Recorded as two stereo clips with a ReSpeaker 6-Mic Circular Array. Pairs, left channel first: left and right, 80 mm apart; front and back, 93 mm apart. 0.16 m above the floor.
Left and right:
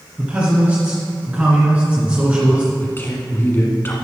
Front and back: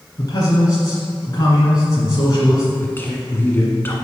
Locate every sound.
0.2 s a man speaking: 25° right, 2 m
2.8 s a man speaking: 50° left, 1.2 m